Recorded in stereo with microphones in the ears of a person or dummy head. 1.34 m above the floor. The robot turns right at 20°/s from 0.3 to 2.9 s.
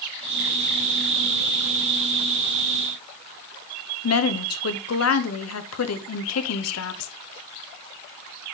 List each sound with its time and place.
4.0 s a woman speaking: 80° left, 1.0 m